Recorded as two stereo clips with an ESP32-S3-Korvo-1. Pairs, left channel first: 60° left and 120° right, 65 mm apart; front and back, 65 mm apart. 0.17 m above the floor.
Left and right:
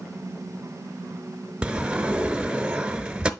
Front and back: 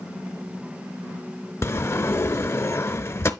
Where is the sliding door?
45° right, 0.6 m.